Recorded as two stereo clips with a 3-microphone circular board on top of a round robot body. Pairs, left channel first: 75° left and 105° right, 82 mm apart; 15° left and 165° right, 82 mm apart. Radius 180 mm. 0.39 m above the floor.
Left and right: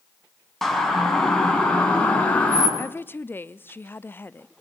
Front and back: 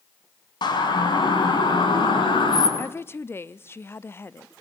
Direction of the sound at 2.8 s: 40° left.